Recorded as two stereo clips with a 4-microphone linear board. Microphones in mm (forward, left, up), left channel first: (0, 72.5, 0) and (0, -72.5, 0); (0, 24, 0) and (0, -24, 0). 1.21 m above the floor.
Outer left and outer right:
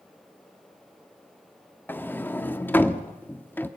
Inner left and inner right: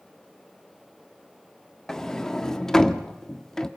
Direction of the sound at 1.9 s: 10° left (ahead or behind).